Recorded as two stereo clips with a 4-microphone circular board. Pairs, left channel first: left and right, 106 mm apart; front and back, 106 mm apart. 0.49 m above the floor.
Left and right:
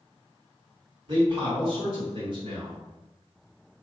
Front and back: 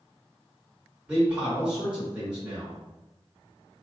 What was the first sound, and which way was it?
A man speaking, 105° right.